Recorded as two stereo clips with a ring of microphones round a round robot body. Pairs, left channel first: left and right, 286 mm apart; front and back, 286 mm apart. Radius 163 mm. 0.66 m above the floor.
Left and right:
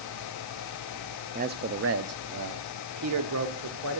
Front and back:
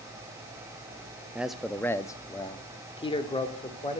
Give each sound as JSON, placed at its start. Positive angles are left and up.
{"t": 1.4, "sound": "a man speaking", "azimuth_deg": -100, "distance_m": 0.6}